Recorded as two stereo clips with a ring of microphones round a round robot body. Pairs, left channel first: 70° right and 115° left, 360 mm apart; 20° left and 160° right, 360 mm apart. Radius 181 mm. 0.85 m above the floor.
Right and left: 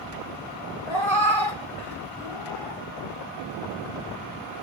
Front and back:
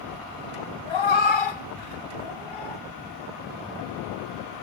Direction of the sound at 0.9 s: 30° left.